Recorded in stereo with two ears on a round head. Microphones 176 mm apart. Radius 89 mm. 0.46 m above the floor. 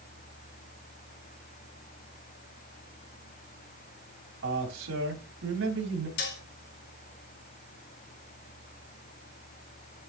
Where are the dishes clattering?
65° left (ahead or behind), 2 m.